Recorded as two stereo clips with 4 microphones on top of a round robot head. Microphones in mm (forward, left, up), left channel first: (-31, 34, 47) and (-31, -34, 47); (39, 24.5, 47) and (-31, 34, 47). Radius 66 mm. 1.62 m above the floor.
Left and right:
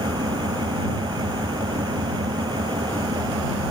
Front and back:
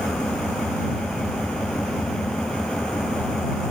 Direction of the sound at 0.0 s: 90° right.